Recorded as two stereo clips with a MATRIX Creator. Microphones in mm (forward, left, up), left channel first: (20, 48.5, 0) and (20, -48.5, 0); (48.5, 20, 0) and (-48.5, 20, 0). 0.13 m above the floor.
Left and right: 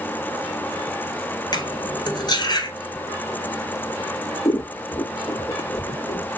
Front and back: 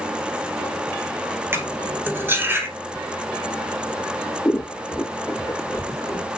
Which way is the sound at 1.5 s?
120° left.